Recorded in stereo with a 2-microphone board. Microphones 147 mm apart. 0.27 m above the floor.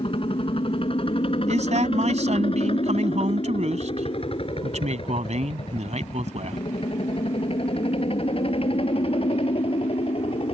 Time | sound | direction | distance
0.0 | a helicopter | 40° left (ahead or behind) | ?
1.5 | a man speaking | 55° right (ahead or behind) | ?